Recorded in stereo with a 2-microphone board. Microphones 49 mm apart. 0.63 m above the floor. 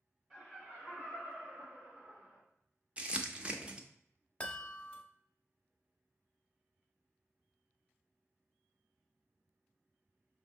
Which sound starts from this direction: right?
Crumpling, at 3.0 s.